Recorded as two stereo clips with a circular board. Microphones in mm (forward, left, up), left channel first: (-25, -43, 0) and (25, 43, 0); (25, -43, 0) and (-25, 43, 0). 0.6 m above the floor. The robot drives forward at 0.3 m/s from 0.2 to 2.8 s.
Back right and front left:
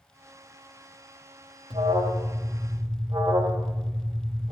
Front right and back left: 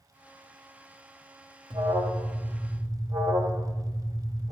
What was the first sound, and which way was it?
An alarm, 90° left.